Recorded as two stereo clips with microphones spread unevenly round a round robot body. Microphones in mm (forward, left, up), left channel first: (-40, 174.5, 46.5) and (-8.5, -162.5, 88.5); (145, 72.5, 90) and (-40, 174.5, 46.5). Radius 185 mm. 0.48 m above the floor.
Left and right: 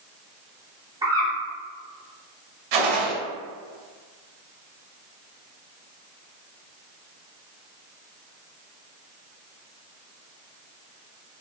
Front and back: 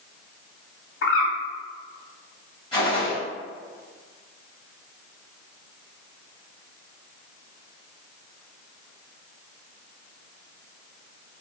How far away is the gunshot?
About 1.0 m.